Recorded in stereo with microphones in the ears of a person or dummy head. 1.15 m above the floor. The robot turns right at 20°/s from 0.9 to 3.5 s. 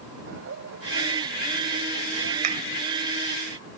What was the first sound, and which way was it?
Laughter, 60° right (ahead or behind).